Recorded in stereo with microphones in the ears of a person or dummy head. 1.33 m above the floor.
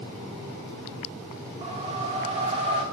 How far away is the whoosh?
About 1.3 m.